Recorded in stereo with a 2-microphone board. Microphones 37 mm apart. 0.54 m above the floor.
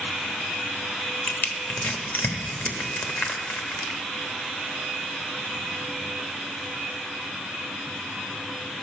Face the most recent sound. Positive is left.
turn(degrees=60)  # may be behind; listen again after turning